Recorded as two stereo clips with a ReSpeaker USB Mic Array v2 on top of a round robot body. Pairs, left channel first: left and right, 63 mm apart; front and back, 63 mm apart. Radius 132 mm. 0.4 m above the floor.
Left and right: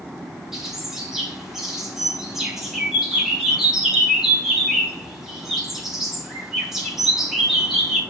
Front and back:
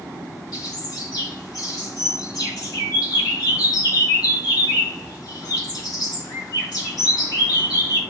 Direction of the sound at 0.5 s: 5° right.